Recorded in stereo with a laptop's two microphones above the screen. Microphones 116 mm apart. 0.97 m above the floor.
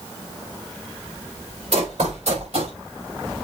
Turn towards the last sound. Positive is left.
turn(degrees=-65)  # may be behind; listen again after turning